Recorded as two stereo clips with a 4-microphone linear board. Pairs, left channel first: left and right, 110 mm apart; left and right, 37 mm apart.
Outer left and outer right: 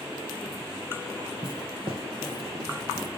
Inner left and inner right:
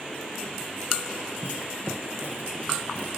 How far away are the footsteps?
About 2.0 m.